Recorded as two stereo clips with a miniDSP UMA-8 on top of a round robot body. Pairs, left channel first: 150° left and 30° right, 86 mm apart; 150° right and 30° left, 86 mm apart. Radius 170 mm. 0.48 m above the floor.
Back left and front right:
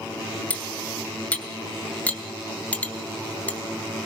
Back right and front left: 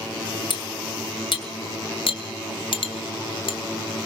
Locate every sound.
0.5 s cutlery clinking: 135° right, 2.5 m